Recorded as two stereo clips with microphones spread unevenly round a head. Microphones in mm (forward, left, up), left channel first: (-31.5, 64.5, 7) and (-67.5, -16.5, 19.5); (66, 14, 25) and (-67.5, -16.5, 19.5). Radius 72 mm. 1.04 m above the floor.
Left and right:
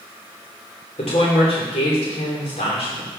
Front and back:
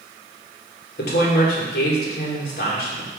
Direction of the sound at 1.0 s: 30° left.